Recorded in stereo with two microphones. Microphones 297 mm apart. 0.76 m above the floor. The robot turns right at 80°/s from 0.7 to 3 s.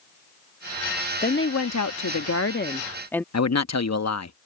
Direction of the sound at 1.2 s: 30° left.